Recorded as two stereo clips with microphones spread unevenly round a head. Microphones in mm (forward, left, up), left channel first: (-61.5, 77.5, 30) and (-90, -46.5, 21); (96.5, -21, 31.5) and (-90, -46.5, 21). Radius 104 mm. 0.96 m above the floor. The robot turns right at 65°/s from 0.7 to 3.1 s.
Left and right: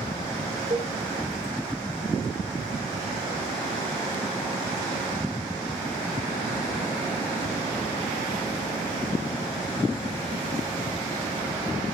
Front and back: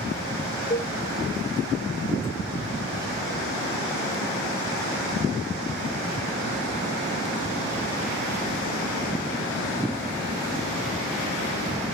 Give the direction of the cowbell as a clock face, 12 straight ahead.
1 o'clock.